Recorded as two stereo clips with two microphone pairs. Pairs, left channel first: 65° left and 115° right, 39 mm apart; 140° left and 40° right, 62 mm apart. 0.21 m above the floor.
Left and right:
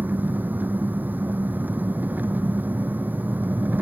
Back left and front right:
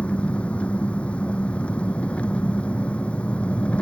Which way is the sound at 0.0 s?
150° right.